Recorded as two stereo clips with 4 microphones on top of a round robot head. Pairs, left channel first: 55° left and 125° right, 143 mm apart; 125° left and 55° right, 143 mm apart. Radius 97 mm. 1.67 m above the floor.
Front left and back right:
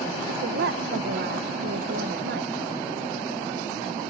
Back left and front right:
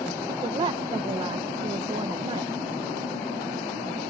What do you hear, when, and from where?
0.3 s a woman speaking: 115° right